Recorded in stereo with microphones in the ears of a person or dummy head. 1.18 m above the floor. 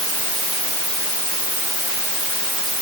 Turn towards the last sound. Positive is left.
No sound to turn to.